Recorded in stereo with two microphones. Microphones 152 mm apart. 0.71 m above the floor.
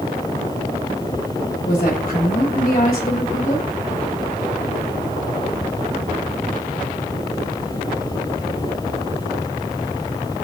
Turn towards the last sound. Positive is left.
turn(degrees=65)  # may be behind; listen again after turning